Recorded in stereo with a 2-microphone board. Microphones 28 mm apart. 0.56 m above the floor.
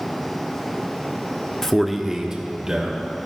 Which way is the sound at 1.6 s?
15° left (ahead or behind).